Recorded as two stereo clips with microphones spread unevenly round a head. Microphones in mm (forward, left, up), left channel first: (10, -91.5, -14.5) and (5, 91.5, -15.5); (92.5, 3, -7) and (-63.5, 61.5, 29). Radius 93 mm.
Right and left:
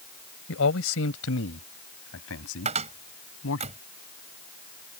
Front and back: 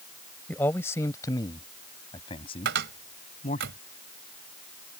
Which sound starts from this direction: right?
A man speaking, at 0.5 s.